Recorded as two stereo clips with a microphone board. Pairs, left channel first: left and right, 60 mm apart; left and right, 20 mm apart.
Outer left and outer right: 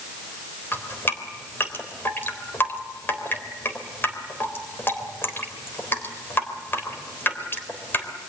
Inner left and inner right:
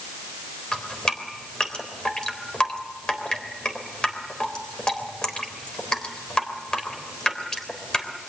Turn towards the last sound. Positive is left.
turn(degrees=40)  # may be behind; listen again after turning